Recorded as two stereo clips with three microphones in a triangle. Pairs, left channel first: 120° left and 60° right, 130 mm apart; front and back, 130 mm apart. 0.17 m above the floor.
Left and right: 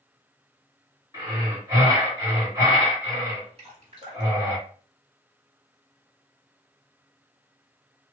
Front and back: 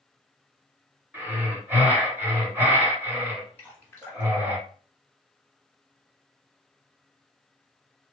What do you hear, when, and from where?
1.1 s breathing: 110° right, 1.8 m
3.6 s dripping: 70° right, 1.5 m